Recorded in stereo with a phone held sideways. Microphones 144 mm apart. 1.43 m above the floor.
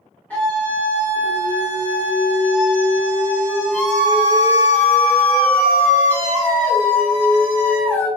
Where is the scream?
10° left (ahead or behind), 0.8 m.